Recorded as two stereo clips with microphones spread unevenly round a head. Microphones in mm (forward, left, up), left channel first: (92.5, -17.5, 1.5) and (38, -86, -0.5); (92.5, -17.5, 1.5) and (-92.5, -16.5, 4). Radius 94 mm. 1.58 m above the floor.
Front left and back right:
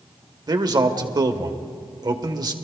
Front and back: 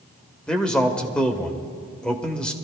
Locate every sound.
0.5 s a man speaking: 85° right, 1.2 m